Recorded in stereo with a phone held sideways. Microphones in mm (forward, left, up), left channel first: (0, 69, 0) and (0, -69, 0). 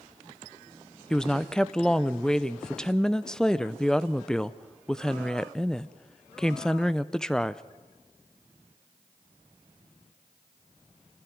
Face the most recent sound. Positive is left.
turn(degrees=5)  # may be behind; listen again after turning